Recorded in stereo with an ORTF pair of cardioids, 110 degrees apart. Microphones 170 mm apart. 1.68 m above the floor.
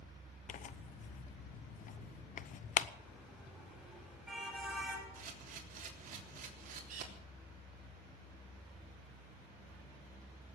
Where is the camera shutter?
55° right, 3.5 m.